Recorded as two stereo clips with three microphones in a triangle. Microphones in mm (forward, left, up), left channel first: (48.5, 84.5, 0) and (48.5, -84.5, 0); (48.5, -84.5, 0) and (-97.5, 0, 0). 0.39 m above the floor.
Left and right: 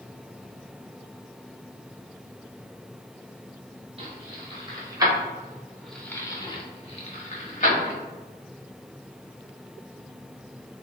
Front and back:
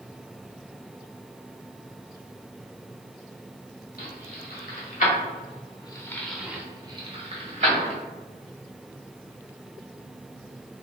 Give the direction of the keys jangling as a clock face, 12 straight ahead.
1 o'clock.